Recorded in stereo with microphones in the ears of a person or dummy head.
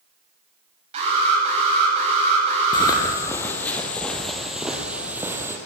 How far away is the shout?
I don't hear a shout.